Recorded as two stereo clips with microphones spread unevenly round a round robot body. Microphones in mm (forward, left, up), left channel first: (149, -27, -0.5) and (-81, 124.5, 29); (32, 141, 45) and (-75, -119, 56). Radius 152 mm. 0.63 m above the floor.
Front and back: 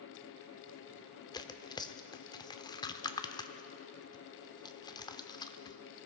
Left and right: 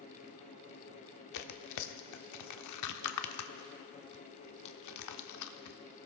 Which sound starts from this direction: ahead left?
Tearing paper, at 1.3 s.